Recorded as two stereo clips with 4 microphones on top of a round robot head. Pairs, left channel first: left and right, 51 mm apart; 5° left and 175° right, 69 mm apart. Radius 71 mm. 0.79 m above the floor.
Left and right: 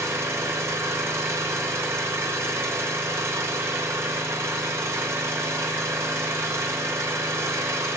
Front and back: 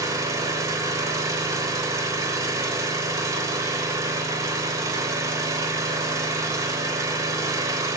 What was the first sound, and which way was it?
An engine running, 130° right.